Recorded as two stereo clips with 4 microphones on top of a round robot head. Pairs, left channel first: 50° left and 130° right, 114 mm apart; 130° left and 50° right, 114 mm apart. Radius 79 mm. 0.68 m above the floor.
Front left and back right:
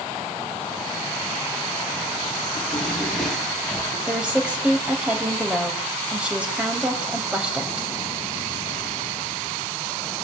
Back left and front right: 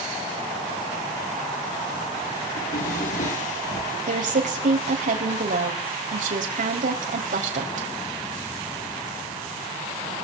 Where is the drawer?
140° left, 6.5 m.